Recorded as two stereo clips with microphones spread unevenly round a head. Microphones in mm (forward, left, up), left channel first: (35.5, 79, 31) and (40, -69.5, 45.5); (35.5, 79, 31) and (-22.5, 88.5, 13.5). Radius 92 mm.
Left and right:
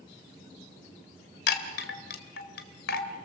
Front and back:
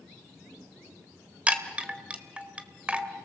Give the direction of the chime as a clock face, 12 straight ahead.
9 o'clock.